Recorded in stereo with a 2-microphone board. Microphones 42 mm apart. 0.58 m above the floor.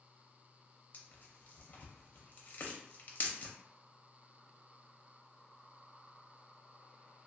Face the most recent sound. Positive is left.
turn(degrees=40)  # may be behind; listen again after turning